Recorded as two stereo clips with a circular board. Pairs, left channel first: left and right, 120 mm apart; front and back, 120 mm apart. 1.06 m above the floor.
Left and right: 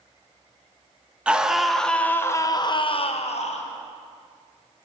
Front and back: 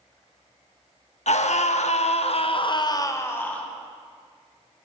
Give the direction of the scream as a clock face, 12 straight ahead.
12 o'clock.